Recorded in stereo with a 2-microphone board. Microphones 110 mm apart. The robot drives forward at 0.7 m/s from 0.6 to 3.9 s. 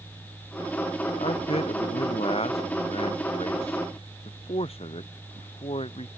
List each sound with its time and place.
1.2 s a man speaking: 65° left (ahead or behind); by 6.1 s 60° left (ahead or behind)